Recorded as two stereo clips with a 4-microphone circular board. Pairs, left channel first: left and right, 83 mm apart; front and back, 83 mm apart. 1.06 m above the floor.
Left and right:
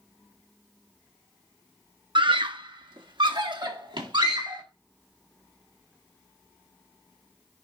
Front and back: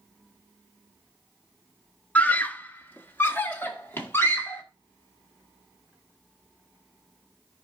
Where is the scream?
75° right, 0.8 m; by 4.6 s 65° right, 2.5 m.